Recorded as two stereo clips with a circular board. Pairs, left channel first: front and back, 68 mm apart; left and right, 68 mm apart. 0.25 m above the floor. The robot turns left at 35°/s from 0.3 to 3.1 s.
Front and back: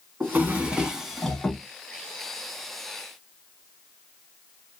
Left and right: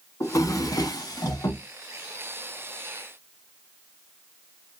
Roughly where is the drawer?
Behind left.